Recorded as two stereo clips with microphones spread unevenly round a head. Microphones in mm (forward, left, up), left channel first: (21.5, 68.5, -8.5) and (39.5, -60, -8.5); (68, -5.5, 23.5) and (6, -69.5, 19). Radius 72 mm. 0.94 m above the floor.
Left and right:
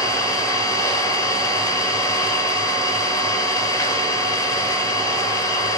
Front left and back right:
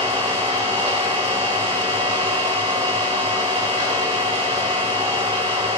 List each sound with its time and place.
0.0 s an engine running: 165° left, 1.2 m